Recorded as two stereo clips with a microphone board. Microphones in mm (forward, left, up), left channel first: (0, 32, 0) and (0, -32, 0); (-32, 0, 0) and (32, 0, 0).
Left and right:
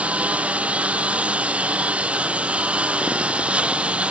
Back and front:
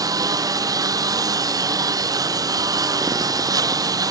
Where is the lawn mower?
20° right; by 4.1 s 15° right.